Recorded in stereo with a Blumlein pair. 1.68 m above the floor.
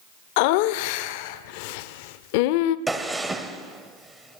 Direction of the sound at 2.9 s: 10° right.